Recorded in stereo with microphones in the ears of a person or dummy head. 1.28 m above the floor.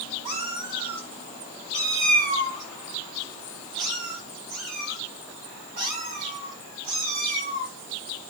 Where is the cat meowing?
20° right (ahead or behind), 1.6 m; by 7.7 s 50° right (ahead or behind), 7 m.